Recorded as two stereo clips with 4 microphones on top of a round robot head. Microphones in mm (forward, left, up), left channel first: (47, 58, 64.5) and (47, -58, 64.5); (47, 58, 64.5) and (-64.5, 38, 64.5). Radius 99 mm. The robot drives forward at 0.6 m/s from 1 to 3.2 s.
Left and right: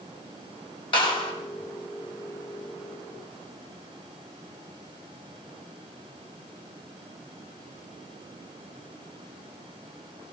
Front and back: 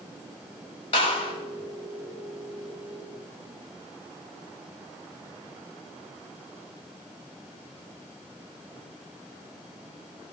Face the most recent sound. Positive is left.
turn(degrees=55)